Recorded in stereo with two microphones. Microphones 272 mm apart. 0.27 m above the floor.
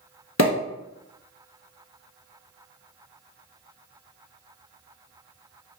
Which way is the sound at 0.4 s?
70° left (ahead or behind).